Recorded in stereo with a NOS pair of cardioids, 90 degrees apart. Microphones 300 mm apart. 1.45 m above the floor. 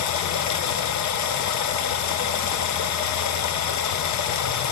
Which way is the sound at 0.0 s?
70° left.